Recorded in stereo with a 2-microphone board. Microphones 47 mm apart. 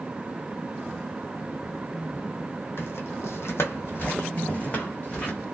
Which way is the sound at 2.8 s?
55° left (ahead or behind).